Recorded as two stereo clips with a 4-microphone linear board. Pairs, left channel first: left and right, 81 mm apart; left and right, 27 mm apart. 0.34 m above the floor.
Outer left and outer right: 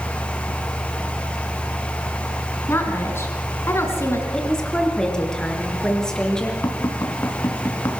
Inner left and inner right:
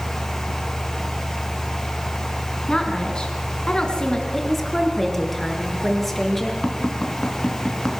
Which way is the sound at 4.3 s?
10° left (ahead or behind).